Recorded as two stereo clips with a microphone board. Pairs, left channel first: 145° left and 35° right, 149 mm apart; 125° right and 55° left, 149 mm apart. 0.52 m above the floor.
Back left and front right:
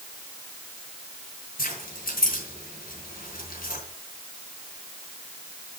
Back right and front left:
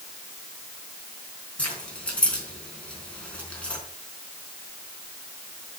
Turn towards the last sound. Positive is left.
turn(degrees=155)